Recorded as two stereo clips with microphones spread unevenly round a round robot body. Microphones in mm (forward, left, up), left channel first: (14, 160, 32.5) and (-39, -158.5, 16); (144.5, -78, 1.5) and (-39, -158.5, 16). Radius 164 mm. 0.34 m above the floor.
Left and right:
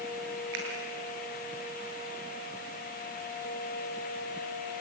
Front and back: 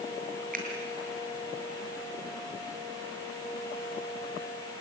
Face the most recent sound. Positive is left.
turn(degrees=-110)